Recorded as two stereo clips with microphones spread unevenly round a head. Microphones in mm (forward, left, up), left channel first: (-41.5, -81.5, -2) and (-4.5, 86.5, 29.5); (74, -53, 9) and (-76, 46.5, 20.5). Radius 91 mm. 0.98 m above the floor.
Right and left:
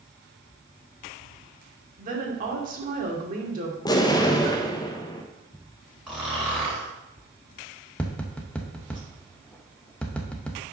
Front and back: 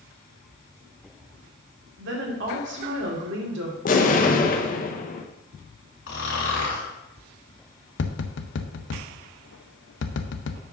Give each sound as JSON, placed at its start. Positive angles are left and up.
{"t": 2.0, "sound": "a woman speaking", "azimuth_deg": 120, "distance_m": 2.5}
{"t": 3.9, "sound": "an explosion", "azimuth_deg": -50, "distance_m": 1.0}
{"t": 6.1, "sound": "snoring", "azimuth_deg": -10, "distance_m": 3.0}
{"t": 8.0, "sound": "tapping", "azimuth_deg": -20, "distance_m": 0.8}